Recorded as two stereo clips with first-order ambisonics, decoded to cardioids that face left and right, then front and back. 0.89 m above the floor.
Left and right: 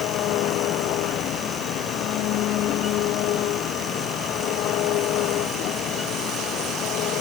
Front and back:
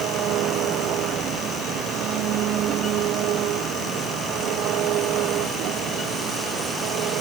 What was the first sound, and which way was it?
An engine running, 135° left.